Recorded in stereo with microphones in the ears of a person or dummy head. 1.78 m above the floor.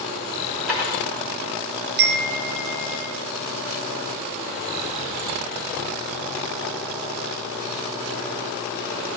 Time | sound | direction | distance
0.7 | dishes clattering | centre (ahead or behind) | 1.1 m
2.0 | a chime | 55° right (ahead or behind) | 0.6 m